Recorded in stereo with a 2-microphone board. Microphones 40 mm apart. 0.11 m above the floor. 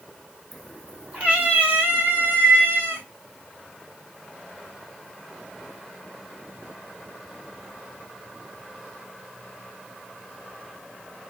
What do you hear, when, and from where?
0.5 s a cat meowing: centre (ahead or behind), 1.6 m; by 3.0 s 65° right (ahead or behind), 3.5 m